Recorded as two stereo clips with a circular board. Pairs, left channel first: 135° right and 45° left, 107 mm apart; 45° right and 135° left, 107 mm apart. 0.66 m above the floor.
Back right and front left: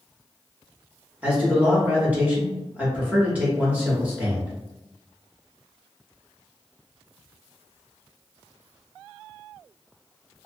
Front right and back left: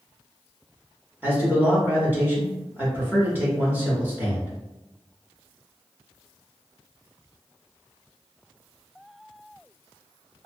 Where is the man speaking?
95° left, 1.0 m.